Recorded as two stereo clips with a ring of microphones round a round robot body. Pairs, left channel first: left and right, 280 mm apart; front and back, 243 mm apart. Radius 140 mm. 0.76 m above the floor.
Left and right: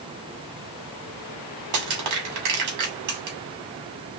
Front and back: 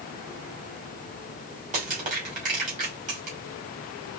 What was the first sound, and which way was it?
Crushing, 115° right.